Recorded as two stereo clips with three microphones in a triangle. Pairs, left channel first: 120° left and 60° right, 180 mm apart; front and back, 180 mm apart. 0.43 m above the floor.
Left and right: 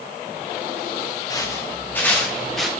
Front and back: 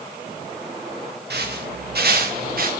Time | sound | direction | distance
1.3 | footsteps | 170° right | 4.5 m